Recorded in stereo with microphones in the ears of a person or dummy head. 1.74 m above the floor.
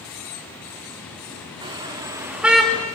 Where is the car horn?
25° right (ahead or behind), 2.5 m; by 2.9 s 10° left (ahead or behind), 1.4 m.